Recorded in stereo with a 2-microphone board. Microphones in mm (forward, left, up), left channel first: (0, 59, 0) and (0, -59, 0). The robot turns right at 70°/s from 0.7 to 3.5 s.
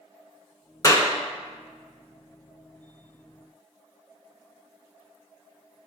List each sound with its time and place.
0.8 s a clap: 30° left (ahead or behind), 1.0 m